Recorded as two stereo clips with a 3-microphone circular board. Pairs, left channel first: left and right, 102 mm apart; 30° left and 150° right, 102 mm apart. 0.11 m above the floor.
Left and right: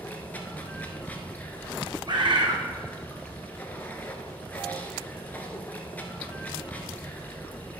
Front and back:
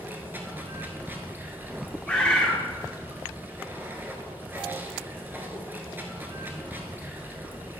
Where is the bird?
50° right, 1.4 m.